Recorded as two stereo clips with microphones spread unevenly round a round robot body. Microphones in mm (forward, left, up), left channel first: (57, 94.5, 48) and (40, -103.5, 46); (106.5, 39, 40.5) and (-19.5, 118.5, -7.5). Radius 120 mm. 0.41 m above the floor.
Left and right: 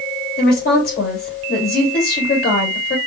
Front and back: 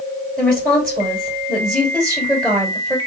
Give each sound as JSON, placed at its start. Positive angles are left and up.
{"t": 0.4, "sound": "a woman speaking", "azimuth_deg": 60, "distance_m": 2.5}